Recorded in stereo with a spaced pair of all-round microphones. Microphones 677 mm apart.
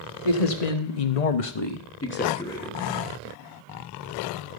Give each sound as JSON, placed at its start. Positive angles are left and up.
{"t": 0.2, "sound": "a man speaking", "side_deg": 60, "distance_m": 1.4}